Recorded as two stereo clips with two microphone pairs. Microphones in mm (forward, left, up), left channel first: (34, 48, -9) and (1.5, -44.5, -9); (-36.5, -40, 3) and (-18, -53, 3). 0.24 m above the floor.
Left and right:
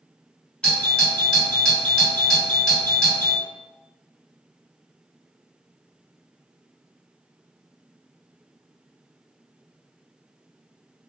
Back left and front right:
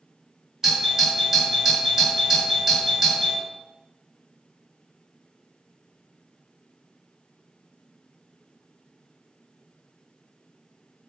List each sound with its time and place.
0.6 s a doorbell: 15° left, 1.8 m